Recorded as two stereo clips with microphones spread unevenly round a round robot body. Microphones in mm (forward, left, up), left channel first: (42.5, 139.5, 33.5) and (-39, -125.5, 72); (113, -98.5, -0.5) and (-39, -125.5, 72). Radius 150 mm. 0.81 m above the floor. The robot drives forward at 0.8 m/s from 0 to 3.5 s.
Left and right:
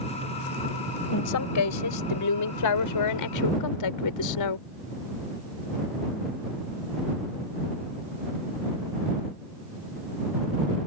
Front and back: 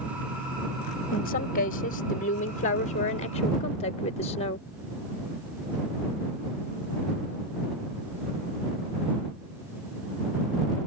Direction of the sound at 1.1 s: 40° left.